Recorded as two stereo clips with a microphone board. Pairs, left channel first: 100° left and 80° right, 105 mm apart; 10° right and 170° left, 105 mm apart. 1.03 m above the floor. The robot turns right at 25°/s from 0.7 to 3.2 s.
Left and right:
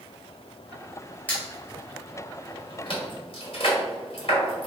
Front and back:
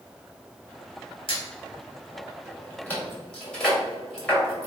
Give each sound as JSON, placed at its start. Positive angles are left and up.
{"t": 1.3, "sound": "a squeak", "azimuth_deg": 25, "distance_m": 1.8}